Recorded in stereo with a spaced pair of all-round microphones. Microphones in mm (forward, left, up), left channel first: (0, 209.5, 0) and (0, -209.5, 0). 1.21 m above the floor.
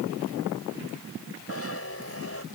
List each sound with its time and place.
1.5 s a zipper: 35° left (ahead or behind)